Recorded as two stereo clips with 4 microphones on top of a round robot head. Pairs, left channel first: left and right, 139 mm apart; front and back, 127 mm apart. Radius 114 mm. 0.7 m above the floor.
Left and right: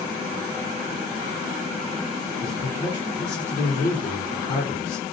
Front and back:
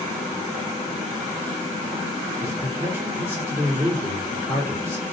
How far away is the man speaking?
About 2 m.